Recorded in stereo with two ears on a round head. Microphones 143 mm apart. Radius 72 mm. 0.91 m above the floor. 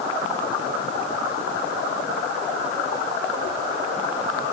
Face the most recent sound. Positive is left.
No sound to turn to.